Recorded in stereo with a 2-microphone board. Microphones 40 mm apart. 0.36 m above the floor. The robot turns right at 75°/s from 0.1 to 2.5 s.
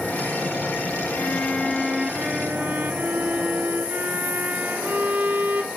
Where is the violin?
130° left, 1.1 m; by 5.7 s 130° right, 1.1 m.